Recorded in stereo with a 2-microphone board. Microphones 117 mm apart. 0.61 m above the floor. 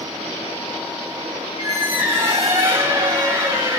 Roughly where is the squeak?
Right.